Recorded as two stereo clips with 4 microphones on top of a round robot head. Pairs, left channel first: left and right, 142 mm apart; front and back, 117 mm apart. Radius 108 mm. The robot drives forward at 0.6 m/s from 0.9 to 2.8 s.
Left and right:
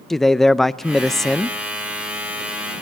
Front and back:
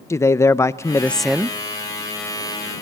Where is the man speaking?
5° left, 0.6 m; by 1.6 s 175° left, 0.6 m.